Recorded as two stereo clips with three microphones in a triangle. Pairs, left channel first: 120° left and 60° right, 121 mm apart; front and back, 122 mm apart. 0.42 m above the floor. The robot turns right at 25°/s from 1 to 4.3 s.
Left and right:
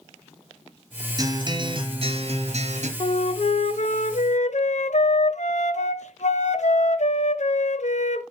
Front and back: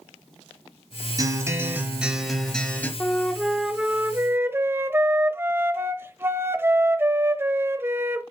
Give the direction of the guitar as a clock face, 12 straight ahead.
4 o'clock.